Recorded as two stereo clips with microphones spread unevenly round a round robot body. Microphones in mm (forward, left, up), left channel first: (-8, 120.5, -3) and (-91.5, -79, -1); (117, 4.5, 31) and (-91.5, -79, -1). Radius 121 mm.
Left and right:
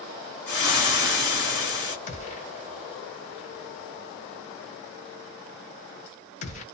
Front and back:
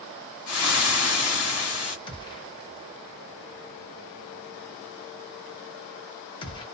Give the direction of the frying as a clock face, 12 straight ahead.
11 o'clock.